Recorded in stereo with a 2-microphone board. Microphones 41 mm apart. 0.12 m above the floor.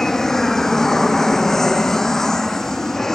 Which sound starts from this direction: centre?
An aircraft, at 0.0 s.